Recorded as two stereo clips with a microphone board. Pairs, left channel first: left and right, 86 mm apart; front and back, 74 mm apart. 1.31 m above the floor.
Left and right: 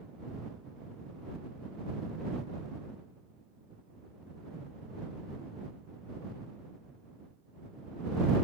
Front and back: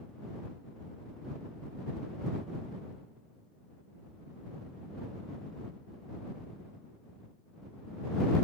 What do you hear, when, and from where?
Only background noise.